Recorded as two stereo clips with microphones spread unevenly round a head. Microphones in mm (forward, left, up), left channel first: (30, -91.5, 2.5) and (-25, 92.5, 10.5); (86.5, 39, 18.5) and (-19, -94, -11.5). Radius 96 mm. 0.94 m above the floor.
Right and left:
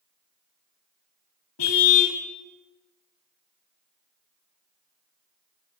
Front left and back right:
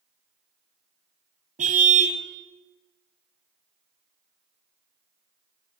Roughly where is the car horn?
Right.